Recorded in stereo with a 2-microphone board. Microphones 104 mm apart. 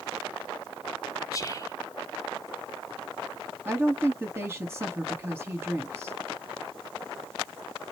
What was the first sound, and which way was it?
Whispering, 35° left (ahead or behind).